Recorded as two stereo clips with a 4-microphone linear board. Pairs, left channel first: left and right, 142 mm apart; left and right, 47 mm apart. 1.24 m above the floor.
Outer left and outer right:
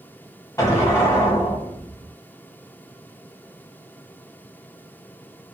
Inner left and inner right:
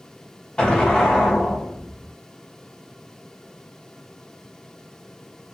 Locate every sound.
0.6 s an explosion: 20° left (ahead or behind), 1.0 m